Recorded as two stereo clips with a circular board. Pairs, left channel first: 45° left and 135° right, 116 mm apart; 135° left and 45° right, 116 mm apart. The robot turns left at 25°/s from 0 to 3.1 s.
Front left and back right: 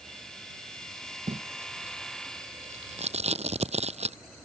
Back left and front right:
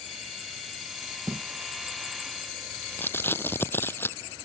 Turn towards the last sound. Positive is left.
turn(degrees=-155)